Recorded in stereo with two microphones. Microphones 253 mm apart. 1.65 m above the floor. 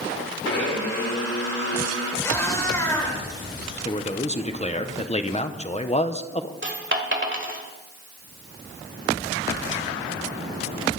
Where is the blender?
80° left, 4 m.